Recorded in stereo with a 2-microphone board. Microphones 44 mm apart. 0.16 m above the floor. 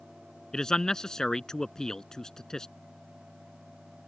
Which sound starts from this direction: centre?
A man speaking, at 0.5 s.